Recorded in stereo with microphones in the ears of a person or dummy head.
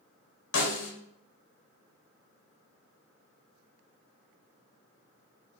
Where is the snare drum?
65° left (ahead or behind), 0.8 m.